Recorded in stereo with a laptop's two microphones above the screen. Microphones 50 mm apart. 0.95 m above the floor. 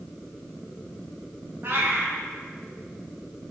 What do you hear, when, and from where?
1.6 s a cat meowing: 45° right (ahead or behind), 0.5 m